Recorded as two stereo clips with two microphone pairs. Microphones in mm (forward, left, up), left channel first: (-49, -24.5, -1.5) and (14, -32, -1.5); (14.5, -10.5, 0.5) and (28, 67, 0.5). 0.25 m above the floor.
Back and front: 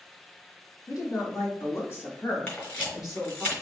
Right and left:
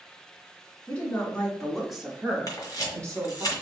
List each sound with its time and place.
0.9 s a woman speaking: 170° right, 2.5 m; by 3.5 s 55° left, 1.7 m
2.5 s a camera shutter: 130° right, 2 m